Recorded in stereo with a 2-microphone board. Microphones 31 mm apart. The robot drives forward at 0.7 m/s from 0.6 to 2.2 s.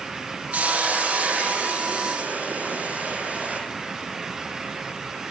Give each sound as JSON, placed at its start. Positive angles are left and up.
{"t": 0.5, "sound": "a hiss", "side_deg": -60, "distance_m": 10.0}